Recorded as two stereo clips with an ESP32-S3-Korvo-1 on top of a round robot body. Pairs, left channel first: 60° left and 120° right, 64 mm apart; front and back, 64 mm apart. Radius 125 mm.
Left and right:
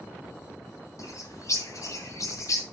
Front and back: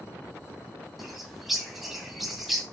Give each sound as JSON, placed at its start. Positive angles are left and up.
{"t": 1.0, "sound": "a bird", "azimuth_deg": 90, "distance_m": 2.5}